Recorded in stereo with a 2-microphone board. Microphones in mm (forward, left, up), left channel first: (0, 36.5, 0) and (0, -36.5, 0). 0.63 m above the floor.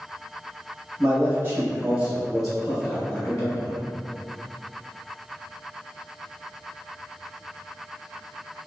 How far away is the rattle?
No rattle in this recording.